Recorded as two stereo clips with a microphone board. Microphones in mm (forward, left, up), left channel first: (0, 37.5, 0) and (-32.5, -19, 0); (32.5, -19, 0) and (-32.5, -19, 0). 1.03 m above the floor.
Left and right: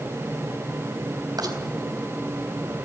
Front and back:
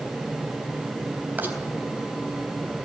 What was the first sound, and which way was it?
A rattle, 120° right.